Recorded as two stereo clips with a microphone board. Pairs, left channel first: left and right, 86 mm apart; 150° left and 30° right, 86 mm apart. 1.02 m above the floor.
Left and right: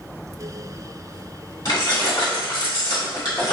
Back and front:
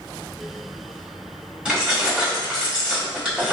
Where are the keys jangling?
50° left, 1.2 m.